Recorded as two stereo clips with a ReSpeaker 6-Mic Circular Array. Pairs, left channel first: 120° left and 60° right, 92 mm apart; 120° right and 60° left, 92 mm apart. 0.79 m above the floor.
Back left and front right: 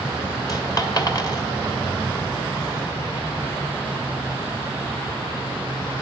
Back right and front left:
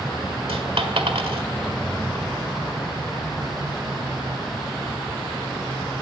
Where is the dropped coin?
70° left, 1.7 m.